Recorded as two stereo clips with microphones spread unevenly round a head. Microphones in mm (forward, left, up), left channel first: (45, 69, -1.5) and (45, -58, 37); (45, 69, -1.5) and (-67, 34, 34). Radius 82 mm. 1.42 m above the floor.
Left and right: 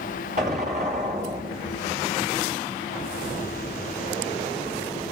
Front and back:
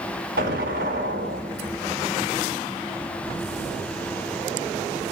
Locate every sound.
0.4 s an explosion: 140° right, 3.5 m